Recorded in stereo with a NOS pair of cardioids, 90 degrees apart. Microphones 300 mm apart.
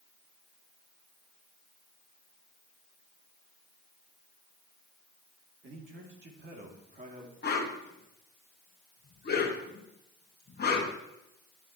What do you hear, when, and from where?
5.6 s a man speaking: 40° right, 2.5 m; by 7.3 s 25° right, 2.5 m
7.4 s a whoosh: 35° left, 1.7 m